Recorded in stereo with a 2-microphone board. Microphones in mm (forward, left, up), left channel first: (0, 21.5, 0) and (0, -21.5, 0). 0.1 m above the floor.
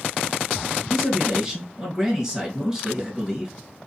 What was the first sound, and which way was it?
A man speaking, 20° right (ahead or behind).